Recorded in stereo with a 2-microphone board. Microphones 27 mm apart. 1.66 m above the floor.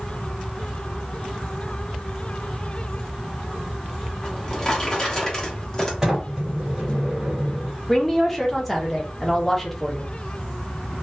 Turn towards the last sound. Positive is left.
turn(degrees=10)  # may be behind; listen again after turning